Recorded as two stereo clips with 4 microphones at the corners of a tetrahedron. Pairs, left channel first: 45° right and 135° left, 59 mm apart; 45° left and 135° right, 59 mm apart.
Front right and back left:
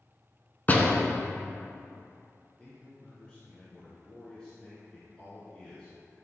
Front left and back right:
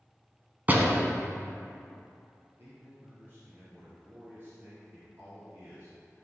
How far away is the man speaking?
About 2.5 m.